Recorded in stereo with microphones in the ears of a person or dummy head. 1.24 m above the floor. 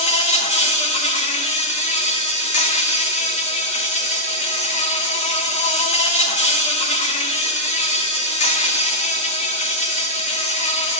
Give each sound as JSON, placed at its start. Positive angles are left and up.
{"t": 0.0, "sound": "an insect", "side_deg": 35, "distance_m": 0.7}